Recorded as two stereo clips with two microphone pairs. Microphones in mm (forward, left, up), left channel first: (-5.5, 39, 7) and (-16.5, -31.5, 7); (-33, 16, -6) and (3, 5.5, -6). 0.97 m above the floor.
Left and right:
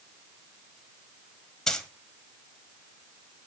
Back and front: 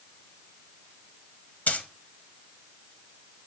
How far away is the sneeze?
No sneeze in this recording.